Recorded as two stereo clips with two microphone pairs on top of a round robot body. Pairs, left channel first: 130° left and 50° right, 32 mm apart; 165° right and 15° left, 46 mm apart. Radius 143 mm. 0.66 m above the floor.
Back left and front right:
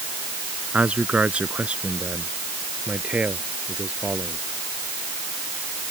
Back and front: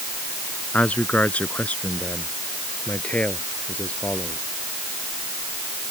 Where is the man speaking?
100° right; by 4.4 s 105° right.